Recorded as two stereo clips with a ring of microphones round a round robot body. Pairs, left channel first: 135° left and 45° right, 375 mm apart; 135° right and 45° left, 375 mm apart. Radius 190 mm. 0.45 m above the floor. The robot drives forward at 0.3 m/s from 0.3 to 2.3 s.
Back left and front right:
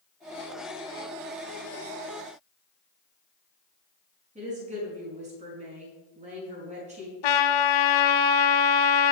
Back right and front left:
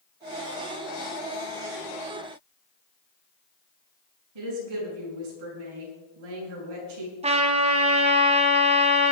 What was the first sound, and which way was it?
A woman speaking, 25° left.